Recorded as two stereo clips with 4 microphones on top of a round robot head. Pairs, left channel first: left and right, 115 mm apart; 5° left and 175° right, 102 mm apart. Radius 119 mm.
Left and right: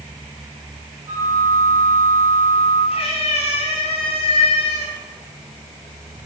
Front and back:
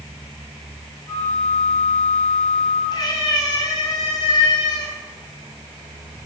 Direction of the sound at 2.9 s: 55° left.